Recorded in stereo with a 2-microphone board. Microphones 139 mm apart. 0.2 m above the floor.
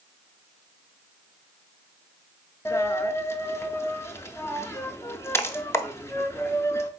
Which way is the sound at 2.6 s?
20° left (ahead or behind).